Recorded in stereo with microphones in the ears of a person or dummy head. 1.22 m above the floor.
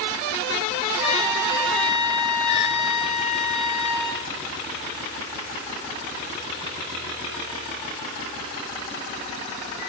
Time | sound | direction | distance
1.0 | a trumpet | 60° right (ahead or behind) | 6.5 m